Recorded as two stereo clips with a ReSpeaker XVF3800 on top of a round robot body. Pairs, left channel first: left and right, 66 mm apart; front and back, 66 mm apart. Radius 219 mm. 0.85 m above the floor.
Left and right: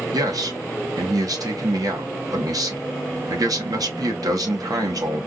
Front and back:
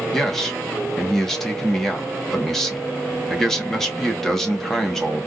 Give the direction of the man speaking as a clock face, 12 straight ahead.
3 o'clock.